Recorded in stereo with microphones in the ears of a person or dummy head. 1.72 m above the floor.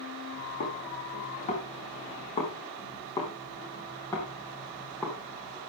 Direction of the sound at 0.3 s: 45° left (ahead or behind).